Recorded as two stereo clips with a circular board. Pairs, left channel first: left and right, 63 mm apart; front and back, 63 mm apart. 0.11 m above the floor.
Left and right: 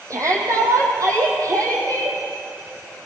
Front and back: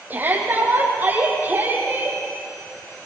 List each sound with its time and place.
0.1 s a shout: 120° right, 5 m